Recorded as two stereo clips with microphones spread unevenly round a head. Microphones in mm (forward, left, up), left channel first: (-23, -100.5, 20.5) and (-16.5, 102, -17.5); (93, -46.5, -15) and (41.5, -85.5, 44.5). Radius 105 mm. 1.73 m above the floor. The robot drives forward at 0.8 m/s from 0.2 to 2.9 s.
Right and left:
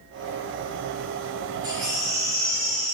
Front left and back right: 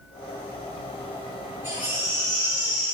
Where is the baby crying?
165° left, 2 m; by 2.9 s 170° left, 3 m.